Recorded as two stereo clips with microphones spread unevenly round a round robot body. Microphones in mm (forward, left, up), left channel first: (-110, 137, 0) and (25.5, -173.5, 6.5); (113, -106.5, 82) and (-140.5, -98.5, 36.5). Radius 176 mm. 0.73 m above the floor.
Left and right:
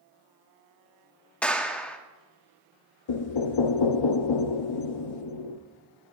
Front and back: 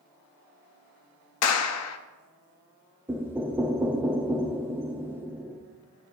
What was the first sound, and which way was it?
A clap, 25° left.